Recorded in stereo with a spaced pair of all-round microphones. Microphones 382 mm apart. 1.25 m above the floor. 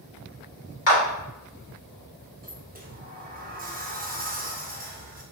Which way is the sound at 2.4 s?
25° right (ahead or behind).